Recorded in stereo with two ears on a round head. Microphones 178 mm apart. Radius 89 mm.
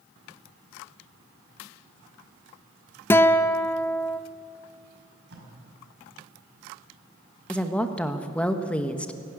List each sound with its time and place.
3.1 s a guitar: 10° left (ahead or behind), 0.6 m
5.3 s tape being pulled: 60° right (ahead or behind), 5.5 m
7.5 s a woman speaking: 5° left (ahead or behind), 1.2 m